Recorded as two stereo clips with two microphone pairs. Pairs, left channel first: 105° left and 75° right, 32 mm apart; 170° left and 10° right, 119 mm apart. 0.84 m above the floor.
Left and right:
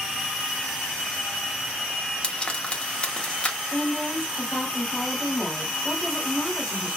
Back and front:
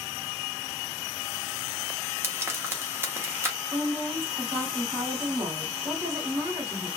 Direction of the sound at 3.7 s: 50° left.